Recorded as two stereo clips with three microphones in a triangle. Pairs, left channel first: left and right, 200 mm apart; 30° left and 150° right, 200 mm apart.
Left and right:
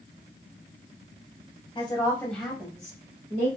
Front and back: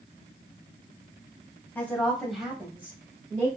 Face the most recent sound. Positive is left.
turn(degrees=-90)